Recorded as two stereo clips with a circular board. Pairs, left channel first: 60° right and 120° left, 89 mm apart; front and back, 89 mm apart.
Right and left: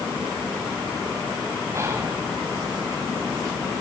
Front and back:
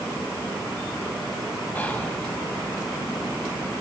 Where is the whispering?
70° left, 2.5 m.